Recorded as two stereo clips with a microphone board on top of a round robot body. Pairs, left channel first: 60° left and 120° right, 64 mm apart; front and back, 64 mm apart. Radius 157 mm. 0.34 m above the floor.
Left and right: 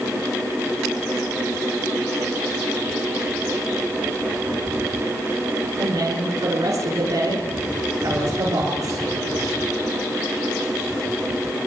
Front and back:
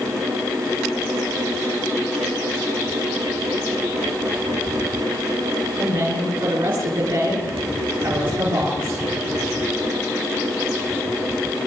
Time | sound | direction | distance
5.8 | a woman speaking | 165° right | 7 m